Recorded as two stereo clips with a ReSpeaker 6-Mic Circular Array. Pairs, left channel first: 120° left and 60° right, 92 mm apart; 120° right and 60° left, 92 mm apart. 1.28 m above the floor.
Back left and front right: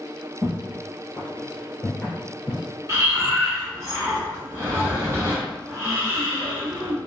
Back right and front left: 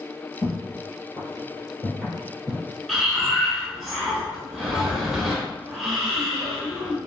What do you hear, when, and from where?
0.4 s footsteps: 100° right, 1.7 m; by 2.6 s 85° left, 1.4 m
2.9 s breathing: 25° right, 1.1 m